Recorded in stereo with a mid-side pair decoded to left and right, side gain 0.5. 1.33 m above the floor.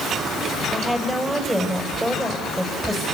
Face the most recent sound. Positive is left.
turn(degrees=-10)